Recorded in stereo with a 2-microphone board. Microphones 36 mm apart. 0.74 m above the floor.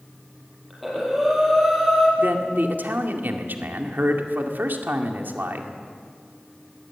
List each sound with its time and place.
0.7 s breathing: centre (ahead or behind), 6 m
2.2 s a man speaking: 65° right (ahead or behind), 2 m